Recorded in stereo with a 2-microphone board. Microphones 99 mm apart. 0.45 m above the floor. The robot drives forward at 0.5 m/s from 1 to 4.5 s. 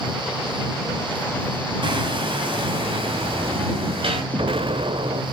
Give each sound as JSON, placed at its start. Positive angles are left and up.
{"t": 1.8, "sound": "hammering", "side_deg": -55, "distance_m": 2.5}
{"t": 4.3, "sound": "an explosion", "side_deg": -65, "distance_m": 0.8}